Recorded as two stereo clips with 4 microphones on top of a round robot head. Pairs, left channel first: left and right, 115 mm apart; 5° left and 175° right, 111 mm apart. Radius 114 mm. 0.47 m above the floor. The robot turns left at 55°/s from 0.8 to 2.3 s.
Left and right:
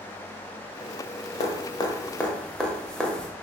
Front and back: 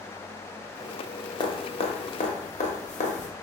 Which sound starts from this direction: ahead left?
Dripping, at 1.4 s.